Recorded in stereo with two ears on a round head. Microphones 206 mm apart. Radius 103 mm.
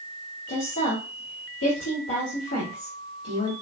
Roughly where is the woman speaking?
Left.